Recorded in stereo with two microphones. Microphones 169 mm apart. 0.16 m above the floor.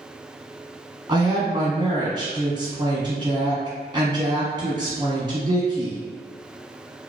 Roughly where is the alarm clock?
No alarm clock in this recording.